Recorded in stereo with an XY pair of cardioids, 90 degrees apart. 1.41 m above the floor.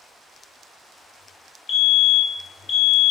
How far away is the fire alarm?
About 3.5 m.